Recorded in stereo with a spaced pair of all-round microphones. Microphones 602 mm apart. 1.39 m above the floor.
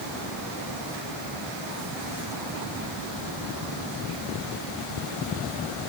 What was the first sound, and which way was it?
Only background noise.